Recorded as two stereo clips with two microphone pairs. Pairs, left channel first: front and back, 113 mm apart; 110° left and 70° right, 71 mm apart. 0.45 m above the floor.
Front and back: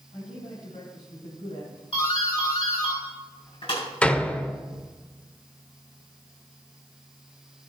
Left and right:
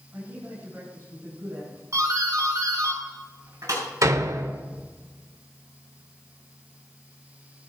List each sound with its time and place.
0.1 s a man speaking: 10° right, 5.5 m
1.9 s a doorbell: 25° right, 5.5 m
4.0 s a door slam: 75° right, 0.8 m